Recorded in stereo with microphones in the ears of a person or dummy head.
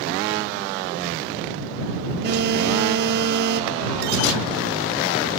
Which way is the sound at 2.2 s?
60° right (ahead or behind).